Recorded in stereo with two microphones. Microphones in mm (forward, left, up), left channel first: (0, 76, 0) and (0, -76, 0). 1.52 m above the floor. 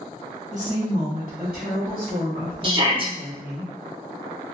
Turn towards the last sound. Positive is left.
turn(degrees=-35)  # may be behind; listen again after turning